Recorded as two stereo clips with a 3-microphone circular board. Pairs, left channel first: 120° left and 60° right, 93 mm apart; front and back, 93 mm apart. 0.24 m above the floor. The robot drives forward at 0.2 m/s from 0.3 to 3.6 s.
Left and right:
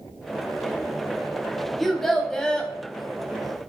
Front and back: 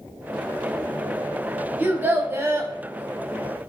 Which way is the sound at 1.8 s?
155° right.